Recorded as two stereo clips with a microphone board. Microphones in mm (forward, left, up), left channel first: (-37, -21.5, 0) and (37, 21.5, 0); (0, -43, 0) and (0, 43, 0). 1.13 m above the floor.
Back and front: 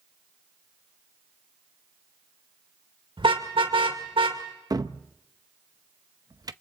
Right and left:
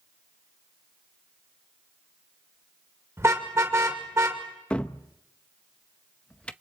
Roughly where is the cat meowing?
No cat meowing in this recording.